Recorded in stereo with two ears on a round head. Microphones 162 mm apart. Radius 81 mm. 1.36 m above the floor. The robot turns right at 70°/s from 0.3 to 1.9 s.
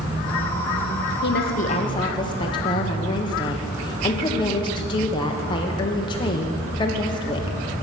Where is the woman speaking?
105° left, 0.7 m; by 7.6 s 155° left, 0.7 m.